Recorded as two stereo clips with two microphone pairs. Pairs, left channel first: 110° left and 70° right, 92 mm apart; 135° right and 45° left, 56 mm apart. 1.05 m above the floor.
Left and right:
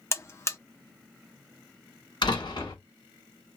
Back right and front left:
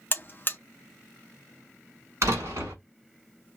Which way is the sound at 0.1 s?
170° left.